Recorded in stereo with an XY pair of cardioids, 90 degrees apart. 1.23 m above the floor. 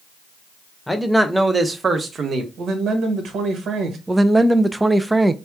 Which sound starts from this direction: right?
A man speaking, at 2.6 s.